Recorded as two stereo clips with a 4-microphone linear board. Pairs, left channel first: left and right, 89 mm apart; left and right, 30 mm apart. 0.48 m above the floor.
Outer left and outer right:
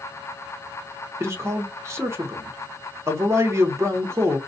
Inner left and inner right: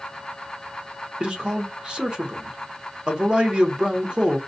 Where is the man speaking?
30° right (ahead or behind), 1.0 m.